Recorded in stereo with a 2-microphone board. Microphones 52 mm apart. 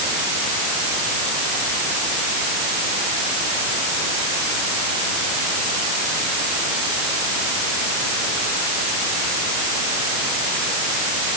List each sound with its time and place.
Only background noise.